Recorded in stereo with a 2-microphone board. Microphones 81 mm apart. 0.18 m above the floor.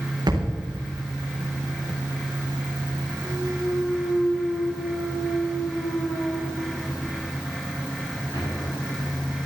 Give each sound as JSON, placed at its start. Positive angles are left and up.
{"t": 0.3, "sound": "a thud", "side_deg": -55, "distance_m": 4.5}
{"t": 3.2, "sound": "a clunk", "side_deg": 65, "distance_m": 6.5}